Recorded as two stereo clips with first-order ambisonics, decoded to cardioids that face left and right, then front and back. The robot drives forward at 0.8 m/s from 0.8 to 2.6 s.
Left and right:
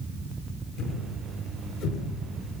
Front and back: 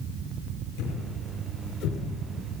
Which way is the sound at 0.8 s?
40° left.